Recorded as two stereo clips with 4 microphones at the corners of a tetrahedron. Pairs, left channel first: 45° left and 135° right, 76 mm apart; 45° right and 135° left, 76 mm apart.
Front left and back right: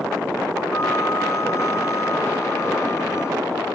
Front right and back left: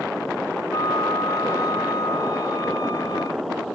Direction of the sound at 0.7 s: 10° right.